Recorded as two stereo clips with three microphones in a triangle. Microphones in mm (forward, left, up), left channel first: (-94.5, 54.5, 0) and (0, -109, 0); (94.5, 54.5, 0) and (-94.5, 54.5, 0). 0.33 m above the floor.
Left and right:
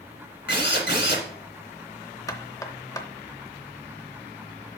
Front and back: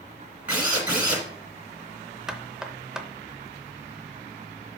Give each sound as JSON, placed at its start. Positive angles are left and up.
{"t": 0.5, "sound": "a drill", "azimuth_deg": 100, "distance_m": 2.0}
{"t": 2.3, "sound": "knocking", "azimuth_deg": 100, "distance_m": 0.6}